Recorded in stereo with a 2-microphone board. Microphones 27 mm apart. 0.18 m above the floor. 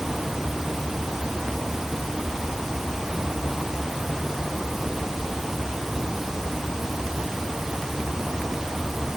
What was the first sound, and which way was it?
Only background noise.